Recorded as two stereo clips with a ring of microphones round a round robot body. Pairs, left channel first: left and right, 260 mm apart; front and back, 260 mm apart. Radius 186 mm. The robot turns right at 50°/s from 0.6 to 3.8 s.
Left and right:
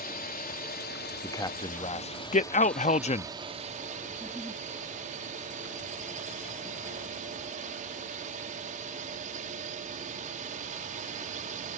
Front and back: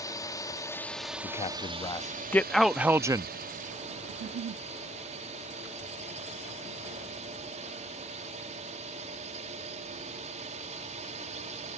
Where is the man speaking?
20° left; by 3.3 s 125° left.